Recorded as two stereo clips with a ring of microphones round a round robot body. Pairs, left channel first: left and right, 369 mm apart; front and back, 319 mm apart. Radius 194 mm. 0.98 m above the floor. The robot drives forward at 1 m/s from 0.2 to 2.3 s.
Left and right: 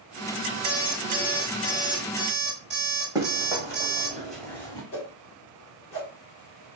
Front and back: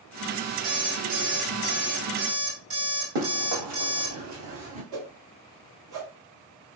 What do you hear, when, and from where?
0.6 s an alarm clock: 155° right, 2.5 m; by 4.2 s 165° right, 4 m
3.1 s running footsteps: 170° right, 2.5 m; by 4.8 s 150° left, 1.0 m
4.9 s a whoosh: 145° left, 1.5 m